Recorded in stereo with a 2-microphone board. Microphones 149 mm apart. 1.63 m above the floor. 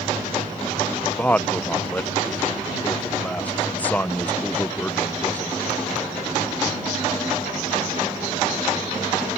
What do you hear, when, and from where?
1.2 s a man speaking: 10° left (ahead or behind)